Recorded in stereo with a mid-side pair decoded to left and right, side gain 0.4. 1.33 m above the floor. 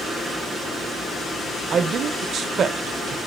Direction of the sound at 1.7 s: 65° right.